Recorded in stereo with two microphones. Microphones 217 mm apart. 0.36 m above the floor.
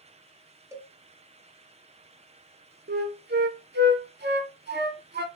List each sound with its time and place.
0.7 s a cowbell: 15° right (ahead or behind), 0.5 m
2.9 s a flute: 50° right (ahead or behind), 0.5 m